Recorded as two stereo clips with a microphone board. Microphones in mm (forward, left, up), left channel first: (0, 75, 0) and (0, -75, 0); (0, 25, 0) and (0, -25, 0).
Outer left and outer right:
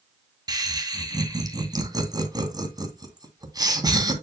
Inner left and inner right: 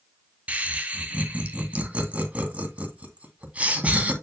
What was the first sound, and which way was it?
Laughter, 25° right (ahead or behind).